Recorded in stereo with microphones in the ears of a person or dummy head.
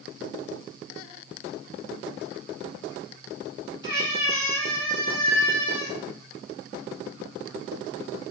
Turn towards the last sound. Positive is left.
turn(degrees=-35)  # may be behind; listen again after turning